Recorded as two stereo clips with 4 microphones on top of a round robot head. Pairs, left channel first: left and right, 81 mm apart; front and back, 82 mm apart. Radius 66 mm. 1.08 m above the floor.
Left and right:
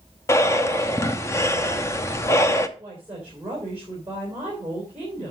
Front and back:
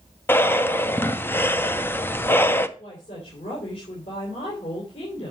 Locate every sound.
0.3 s breathing: 50° left, 0.9 m
2.8 s a woman speaking: 15° right, 4 m